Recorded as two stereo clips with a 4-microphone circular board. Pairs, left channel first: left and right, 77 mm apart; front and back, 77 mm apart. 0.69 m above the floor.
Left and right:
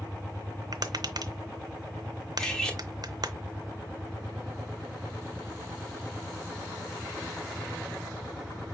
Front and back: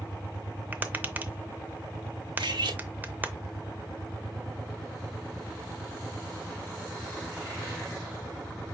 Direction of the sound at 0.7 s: 115° right.